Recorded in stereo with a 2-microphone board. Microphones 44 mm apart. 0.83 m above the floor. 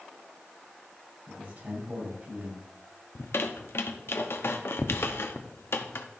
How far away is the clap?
I don't hear a clap.